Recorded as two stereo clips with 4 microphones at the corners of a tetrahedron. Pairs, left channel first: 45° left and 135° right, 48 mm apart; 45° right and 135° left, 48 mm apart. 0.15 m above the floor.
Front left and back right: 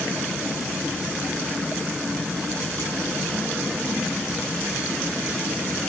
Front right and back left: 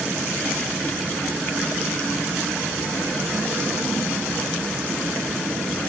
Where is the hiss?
I don't hear a hiss.